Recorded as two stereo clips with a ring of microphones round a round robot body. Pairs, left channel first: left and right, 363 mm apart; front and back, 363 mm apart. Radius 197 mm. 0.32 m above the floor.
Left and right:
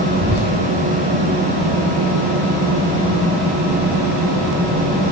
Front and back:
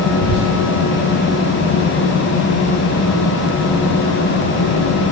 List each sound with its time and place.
0.1 s whispering: 10° left, 2.5 m